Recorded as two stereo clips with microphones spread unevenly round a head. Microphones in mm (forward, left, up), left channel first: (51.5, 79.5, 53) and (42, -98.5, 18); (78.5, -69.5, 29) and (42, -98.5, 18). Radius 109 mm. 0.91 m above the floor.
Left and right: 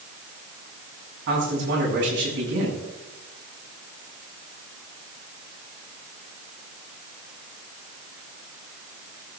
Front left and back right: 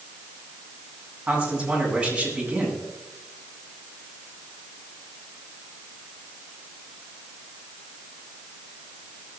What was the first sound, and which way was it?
A man speaking, 75° right.